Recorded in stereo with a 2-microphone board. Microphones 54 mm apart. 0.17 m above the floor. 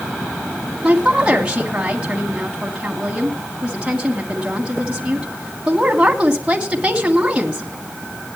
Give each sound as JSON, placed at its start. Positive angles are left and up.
{"t": 0.8, "sound": "a woman speaking", "side_deg": -20, "distance_m": 1.6}